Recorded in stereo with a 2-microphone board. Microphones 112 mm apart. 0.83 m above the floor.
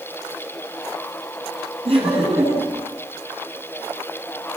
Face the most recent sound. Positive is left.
turn(degrees=-60)  # may be behind; listen again after turning